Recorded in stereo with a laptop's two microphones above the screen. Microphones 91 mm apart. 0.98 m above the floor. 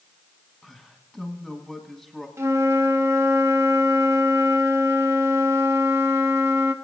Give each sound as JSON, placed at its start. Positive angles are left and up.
{"t": 0.6, "sound": "a man speaking", "side_deg": -5, "distance_m": 1.5}
{"t": 2.4, "sound": "a flute", "side_deg": -35, "distance_m": 1.0}